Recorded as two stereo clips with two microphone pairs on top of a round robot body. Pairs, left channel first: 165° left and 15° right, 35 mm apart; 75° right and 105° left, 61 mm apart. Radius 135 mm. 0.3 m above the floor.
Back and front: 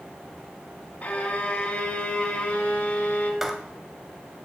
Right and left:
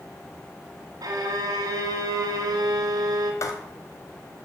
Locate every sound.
1.0 s a violin: 125° left, 2 m
3.4 s writing: 100° right, 1.7 m